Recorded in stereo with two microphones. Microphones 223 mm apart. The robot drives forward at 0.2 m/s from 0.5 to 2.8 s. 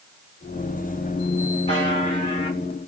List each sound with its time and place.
1.7 s a buzzer: 30° left (ahead or behind), 1.5 m; by 2.6 s 25° left (ahead or behind), 1.6 m